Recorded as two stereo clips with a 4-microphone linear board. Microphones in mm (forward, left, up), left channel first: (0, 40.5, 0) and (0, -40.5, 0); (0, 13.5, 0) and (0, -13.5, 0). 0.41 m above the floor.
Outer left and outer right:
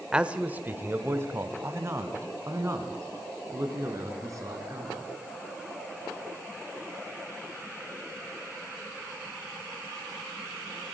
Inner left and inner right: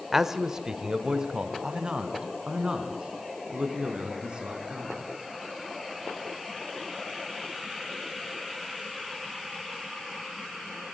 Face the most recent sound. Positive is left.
turn(degrees=-40)  # may be behind; listen again after turning